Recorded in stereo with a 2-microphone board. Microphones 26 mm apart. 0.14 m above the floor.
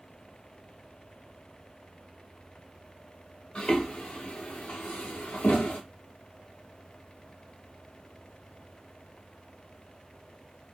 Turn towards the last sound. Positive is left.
turn(degrees=85)